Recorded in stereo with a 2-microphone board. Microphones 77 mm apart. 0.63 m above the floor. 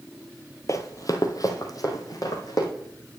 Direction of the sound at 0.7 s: 45° left (ahead or behind).